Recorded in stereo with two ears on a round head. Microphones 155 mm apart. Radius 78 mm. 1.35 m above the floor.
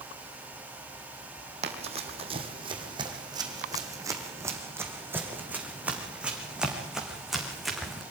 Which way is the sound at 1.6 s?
40° right (ahead or behind).